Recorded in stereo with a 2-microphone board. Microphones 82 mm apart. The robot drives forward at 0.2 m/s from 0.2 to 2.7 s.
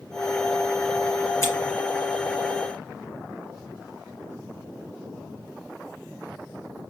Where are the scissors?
30° left (ahead or behind), 2.5 m.